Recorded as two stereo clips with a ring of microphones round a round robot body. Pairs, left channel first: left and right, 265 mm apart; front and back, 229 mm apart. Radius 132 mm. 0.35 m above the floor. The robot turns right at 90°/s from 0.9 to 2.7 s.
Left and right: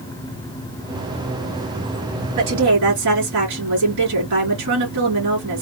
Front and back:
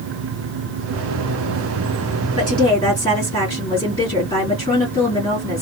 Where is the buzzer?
No buzzer in this recording.